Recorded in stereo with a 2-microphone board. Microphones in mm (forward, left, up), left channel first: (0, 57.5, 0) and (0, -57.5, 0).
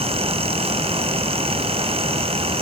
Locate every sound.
Only background noise.